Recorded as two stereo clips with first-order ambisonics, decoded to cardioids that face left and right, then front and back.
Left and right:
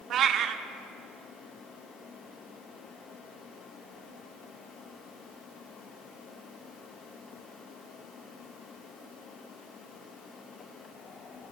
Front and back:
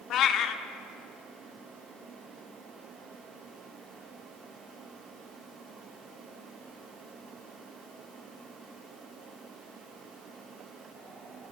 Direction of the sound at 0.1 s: 40° right.